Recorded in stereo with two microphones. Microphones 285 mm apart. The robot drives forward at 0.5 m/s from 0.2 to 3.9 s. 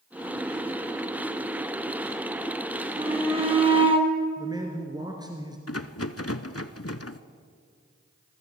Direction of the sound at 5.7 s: 55° left (ahead or behind).